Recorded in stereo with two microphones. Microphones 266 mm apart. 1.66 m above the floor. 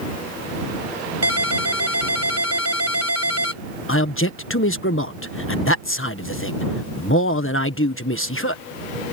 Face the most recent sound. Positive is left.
turn(degrees=50)  # may be behind; listen again after turning